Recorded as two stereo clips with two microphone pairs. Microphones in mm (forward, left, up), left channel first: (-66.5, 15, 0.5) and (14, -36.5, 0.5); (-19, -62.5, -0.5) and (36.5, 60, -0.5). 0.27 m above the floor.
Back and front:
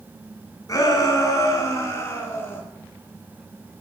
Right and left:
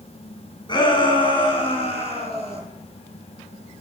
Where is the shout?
165° right, 3 m; by 2.6 s 145° right, 4 m.